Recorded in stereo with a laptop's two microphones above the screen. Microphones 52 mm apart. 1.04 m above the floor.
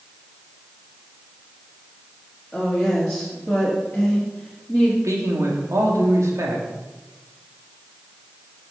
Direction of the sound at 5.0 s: 75° right (ahead or behind).